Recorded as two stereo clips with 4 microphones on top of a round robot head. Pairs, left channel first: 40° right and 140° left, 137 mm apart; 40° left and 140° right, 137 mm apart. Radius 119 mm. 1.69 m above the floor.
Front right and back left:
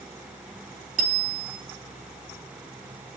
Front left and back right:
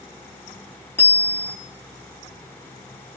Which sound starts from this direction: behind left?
A bicycle bell, at 1.0 s.